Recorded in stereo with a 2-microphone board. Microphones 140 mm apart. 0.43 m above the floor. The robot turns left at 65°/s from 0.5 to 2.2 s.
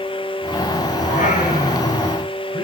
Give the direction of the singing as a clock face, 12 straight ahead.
8 o'clock.